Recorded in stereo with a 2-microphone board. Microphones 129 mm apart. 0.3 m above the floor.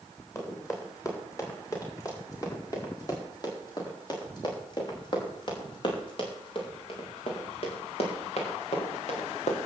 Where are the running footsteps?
20° left (ahead or behind), 7.5 m; by 9.6 s 60° left (ahead or behind), 4.5 m.